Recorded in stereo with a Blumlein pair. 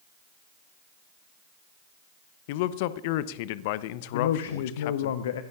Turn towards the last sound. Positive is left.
turn(degrees=60)